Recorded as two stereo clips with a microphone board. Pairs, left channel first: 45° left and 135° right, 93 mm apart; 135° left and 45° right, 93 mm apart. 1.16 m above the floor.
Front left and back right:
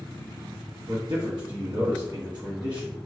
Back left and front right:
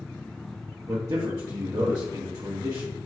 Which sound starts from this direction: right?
A man speaking, at 0.9 s.